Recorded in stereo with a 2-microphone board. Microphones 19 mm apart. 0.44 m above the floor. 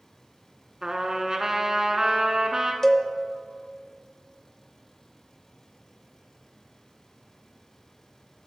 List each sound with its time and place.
0.8 s a trumpet: 30° right (ahead or behind), 1.0 m
2.8 s a cowbell: 20° left (ahead or behind), 0.6 m